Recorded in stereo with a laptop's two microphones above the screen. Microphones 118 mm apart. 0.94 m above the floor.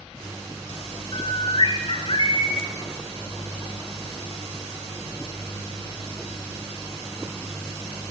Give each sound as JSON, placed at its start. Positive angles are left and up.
{"t": 1.1, "sound": "a bird", "side_deg": 50, "distance_m": 1.3}